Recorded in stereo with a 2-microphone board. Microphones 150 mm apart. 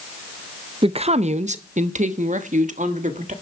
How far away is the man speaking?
About 0.5 m.